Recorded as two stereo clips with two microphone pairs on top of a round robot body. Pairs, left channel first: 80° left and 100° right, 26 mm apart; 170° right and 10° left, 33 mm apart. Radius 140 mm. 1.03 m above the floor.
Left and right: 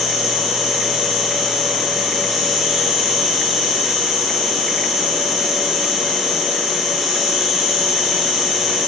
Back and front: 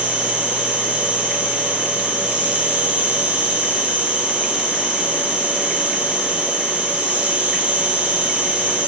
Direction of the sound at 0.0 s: 25° right.